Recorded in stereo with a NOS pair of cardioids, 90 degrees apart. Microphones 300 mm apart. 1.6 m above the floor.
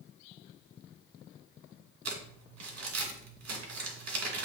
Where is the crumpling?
55° right, 2.5 m.